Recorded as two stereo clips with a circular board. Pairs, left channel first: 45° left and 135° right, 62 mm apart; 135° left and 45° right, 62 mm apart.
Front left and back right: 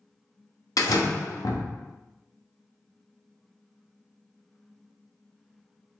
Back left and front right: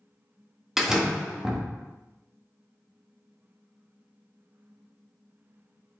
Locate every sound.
0.8 s a door slam: 40° left, 1.2 m